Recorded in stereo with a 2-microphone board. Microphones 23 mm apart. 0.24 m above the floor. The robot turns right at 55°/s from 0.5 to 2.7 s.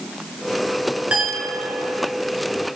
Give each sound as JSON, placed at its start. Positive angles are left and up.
{"t": 1.1, "sound": "a clink", "azimuth_deg": -75, "distance_m": 2.0}